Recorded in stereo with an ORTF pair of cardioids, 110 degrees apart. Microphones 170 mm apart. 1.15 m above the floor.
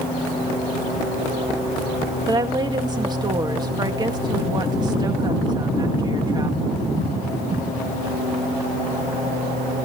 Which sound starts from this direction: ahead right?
A woman speaking, at 2.3 s.